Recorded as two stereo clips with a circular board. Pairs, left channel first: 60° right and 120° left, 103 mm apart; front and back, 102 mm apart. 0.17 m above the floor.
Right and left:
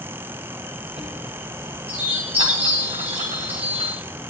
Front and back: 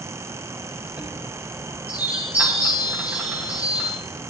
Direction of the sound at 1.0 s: 105° left.